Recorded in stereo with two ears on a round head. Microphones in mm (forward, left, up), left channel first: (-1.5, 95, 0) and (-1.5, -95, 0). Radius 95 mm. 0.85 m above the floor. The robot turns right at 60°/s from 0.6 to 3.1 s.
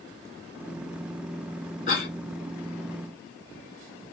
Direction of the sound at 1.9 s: 35° left (ahead or behind).